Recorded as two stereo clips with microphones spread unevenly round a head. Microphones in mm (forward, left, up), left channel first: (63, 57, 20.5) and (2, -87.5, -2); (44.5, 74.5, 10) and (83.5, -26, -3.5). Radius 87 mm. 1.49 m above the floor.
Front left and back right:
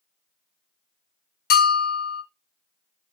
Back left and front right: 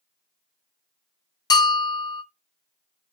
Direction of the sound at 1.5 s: 65° left.